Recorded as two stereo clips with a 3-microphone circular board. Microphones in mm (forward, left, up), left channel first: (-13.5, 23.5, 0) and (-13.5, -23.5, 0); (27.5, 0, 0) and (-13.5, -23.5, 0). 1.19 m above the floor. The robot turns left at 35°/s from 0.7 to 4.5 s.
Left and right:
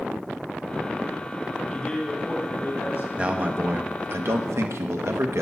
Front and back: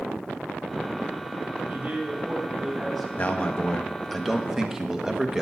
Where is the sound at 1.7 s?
170° left, 2.5 m; by 3.1 s 120° left, 2.5 m.